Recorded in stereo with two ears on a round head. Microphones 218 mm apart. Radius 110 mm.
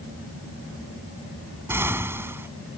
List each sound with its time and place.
1.7 s an explosion: 10° right (ahead or behind)